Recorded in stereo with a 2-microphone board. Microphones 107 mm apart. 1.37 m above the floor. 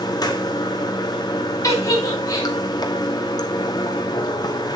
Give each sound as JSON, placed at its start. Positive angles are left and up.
{"t": 0.0, "sound": "running water", "side_deg": 40, "distance_m": 1.2}
{"t": 1.6, "sound": "a giggle", "side_deg": 30, "distance_m": 2.5}